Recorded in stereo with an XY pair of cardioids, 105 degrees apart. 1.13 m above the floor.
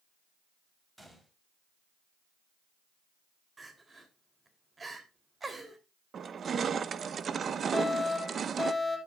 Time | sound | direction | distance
1.0 | a gunshot | 15° right | 3.5 m
3.6 | crying | 25° right | 3 m
6.1 | crushing | 45° right | 0.8 m
7.7 | a fire alarm | 15° left | 9 m